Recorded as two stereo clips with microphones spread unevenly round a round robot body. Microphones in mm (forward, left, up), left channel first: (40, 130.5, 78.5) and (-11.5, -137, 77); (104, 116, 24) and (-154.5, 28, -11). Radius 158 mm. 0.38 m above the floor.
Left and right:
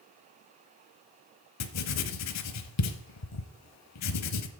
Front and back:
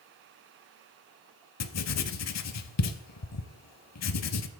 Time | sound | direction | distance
1.6 | writing | 50° left | 0.9 m